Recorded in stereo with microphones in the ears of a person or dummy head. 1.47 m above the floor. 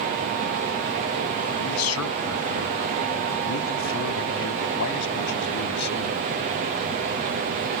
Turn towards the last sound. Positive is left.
turn(degrees=55)  # may be behind; listen again after turning